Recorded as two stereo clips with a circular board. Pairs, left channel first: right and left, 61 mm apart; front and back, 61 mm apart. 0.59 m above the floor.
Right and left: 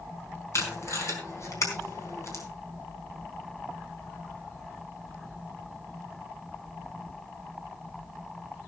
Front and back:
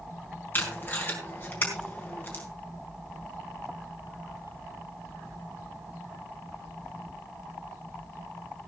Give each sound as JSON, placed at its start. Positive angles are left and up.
{"t": 0.5, "sound": "tape being pulled", "azimuth_deg": -55, "distance_m": 4.0}